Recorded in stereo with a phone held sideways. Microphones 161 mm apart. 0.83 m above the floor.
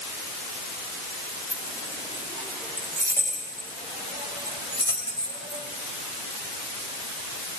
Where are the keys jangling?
15° right (ahead or behind), 5.5 m; by 5.7 s 25° right (ahead or behind), 3 m.